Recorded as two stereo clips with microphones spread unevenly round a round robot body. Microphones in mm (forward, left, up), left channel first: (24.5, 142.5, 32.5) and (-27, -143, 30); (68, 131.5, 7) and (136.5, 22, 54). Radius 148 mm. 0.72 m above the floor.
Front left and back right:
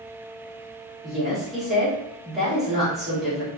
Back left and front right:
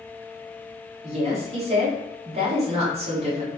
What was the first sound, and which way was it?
A woman speaking, 10° right.